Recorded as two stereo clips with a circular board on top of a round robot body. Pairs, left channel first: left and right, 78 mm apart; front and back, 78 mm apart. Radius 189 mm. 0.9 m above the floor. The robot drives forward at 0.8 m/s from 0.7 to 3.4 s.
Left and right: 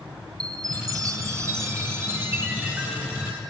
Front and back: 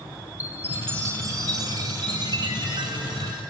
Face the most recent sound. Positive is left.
turn(degrees=-160)